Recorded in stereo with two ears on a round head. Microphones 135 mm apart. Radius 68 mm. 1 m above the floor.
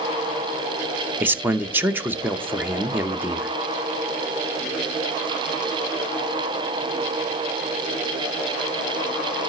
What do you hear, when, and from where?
1.2 s a man speaking: 15° right (ahead or behind), 0.7 m